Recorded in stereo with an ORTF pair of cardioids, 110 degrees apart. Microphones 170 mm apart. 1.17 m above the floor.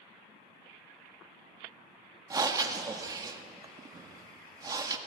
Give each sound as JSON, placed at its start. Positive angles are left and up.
{"t": 2.3, "sound": "breathing", "azimuth_deg": -20, "distance_m": 1.7}